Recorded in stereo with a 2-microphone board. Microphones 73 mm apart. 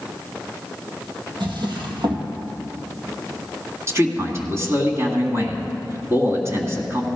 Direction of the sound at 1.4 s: 75° right (ahead or behind).